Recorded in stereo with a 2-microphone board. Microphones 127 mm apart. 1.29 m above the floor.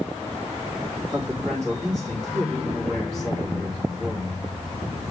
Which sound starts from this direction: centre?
A man speaking, at 1.1 s.